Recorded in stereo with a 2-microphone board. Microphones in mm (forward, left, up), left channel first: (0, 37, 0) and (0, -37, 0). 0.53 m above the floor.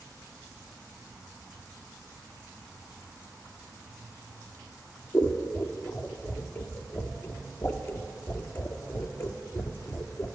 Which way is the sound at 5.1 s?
30° left (ahead or behind).